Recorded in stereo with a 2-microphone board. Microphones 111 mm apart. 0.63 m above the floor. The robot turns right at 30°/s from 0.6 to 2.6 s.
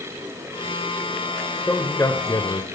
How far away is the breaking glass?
No breaking glass in this recording.